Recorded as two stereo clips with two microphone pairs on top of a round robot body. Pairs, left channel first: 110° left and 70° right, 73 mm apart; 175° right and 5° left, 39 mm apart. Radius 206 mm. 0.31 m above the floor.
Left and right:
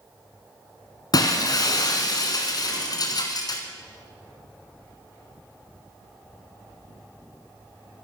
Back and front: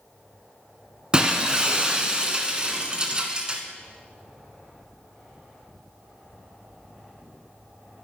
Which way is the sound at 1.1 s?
75° left.